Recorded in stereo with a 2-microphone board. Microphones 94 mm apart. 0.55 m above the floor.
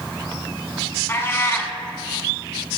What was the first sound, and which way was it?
A cat meowing, 25° left (ahead or behind).